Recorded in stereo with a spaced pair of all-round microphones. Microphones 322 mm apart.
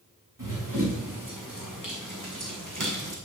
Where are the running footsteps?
70° right (ahead or behind), 5 m.